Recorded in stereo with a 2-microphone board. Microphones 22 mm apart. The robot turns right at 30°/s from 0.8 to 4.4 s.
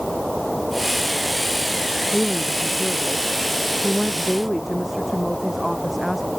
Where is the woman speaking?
115° left; by 6.3 s 175° right.